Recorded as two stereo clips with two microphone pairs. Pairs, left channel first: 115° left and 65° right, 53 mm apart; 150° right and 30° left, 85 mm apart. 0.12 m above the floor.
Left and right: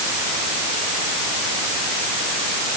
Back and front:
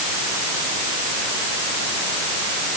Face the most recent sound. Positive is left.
No sound to turn to.